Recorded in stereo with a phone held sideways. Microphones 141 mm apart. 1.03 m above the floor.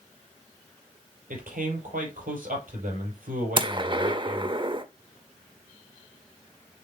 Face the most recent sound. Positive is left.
turn(degrees=-35)  # may be behind; listen again after turning